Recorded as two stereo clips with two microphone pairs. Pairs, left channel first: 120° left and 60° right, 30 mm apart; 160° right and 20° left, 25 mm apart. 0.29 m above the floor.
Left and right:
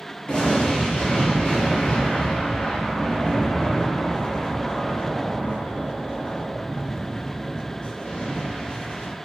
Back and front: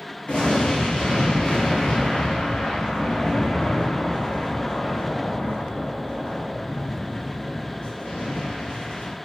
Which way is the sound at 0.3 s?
175° left.